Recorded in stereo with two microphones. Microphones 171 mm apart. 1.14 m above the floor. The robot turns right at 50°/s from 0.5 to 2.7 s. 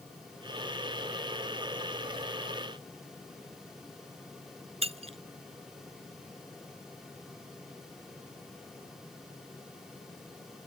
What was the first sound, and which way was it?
Breaking glass, 35° right (ahead or behind).